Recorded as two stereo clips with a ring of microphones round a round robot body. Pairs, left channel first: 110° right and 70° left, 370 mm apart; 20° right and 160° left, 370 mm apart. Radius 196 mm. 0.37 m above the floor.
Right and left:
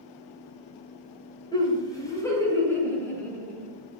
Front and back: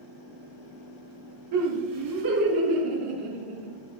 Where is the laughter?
170° left, 2 m; by 3.7 s 160° left, 3.5 m.